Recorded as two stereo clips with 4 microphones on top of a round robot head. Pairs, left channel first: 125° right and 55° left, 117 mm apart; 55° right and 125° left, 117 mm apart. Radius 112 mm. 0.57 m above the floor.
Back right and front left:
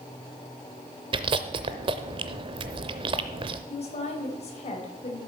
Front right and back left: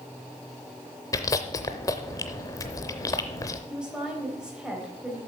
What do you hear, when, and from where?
1.1 s chewing: 10° left, 0.5 m
3.7 s a woman speaking: 155° right, 3.5 m